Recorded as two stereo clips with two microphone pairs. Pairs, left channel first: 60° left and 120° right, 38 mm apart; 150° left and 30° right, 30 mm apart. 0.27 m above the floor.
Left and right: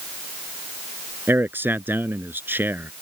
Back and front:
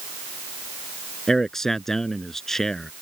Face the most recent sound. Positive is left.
turn(degrees=-135)